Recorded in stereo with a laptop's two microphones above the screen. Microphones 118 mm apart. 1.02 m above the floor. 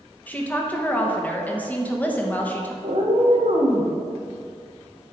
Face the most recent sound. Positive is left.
turn(degrees=-75)  # may be behind; listen again after turning